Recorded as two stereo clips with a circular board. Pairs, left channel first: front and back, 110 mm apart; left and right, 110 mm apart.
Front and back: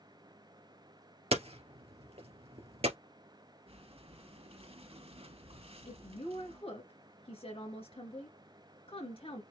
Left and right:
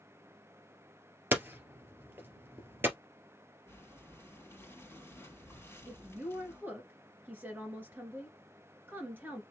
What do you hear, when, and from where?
1.3 s hammering: 160° right, 2 m
3.7 s breathing: 155° left, 3 m
5.9 s a woman speaking: 20° right, 2.5 m